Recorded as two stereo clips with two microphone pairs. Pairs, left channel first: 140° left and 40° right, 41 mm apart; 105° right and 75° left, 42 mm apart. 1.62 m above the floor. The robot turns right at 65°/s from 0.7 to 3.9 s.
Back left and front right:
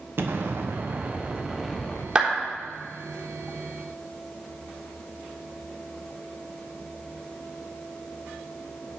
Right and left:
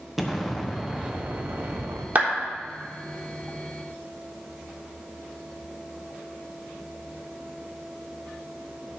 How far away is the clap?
About 3.5 m.